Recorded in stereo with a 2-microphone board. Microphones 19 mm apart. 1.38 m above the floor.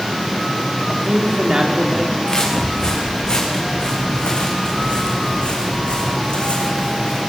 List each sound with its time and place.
0.9 s a man speaking: 40° right (ahead or behind), 4 m
2.3 s footsteps: 40° left (ahead or behind), 7 m; by 7.2 s 70° left (ahead or behind), 4.5 m